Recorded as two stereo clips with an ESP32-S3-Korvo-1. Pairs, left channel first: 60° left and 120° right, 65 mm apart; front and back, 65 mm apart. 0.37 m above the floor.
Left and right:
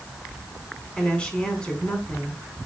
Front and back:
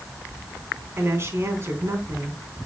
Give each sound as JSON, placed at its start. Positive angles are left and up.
{"t": 1.0, "sound": "a woman speaking", "azimuth_deg": 135, "distance_m": 3.5}